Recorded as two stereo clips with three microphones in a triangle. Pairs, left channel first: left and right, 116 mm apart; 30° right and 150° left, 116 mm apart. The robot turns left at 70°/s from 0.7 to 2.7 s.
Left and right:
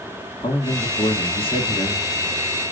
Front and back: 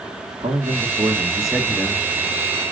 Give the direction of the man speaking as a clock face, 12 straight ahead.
8 o'clock.